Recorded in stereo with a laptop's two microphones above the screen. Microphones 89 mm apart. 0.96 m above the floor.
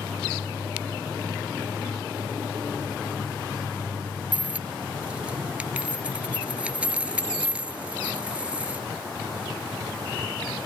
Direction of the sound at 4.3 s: 15° right (ahead or behind).